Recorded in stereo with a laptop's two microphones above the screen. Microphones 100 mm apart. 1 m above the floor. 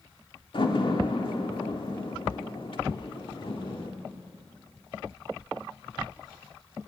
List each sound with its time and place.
0.5 s a door slam: 55° left (ahead or behind), 1.9 m